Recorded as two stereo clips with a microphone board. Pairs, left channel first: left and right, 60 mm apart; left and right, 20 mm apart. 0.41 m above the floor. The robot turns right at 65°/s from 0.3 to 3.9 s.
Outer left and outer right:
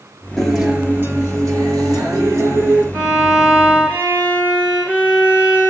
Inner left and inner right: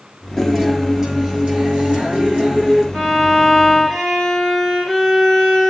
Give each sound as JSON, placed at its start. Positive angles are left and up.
{"t": 0.4, "sound": "a guitar", "azimuth_deg": 170, "distance_m": 5.5}
{"t": 2.9, "sound": "a violin", "azimuth_deg": -30, "distance_m": 8.0}